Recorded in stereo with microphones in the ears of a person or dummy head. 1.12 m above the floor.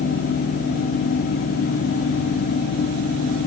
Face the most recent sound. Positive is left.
No sound to turn to.